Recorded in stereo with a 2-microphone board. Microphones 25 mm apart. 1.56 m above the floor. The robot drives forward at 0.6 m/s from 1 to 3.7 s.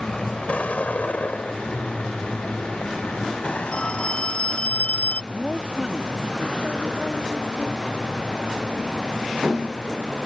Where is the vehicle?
40° left (ahead or behind); by 10.3 s 30° left (ahead or behind).